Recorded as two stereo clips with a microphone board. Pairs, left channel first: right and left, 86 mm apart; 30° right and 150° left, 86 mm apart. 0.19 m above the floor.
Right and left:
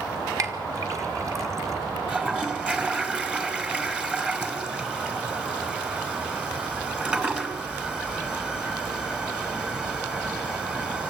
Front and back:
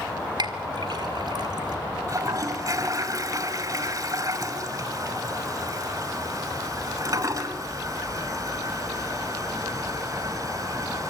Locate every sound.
0.4 s a clink: 135° left, 1.7 m
2.1 s a toilet flushing: 160° left, 1.7 m